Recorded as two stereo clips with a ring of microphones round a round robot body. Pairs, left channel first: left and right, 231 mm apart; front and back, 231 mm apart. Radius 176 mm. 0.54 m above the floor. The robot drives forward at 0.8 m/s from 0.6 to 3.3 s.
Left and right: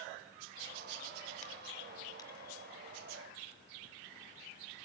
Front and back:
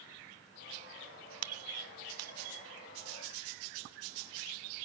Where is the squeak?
155° left, 0.5 m; by 2.7 s 170° left, 1.5 m.